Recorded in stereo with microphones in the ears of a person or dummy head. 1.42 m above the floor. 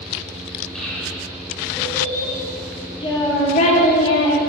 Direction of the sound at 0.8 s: Centre (ahead or behind).